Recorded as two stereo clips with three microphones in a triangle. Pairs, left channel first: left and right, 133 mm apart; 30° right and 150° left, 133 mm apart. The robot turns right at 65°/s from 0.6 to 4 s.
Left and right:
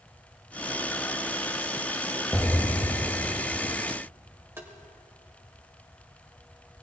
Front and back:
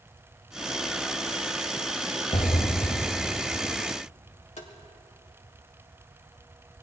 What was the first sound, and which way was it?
An explosion, 5° left.